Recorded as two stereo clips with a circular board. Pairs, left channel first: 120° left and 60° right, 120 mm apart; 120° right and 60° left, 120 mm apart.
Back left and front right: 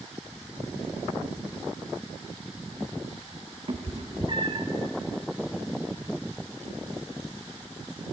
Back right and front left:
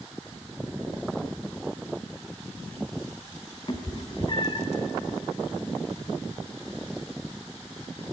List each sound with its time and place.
3.7 s a cat meowing: 85° right, 0.9 m